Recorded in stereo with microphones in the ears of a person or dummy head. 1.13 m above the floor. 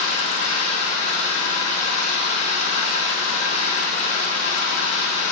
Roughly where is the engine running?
Left.